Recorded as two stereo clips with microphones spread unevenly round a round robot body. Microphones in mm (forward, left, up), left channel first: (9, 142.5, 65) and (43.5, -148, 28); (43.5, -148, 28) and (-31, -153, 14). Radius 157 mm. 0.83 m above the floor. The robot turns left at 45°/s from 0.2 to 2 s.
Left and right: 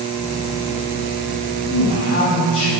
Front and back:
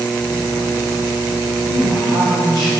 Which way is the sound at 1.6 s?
70° left.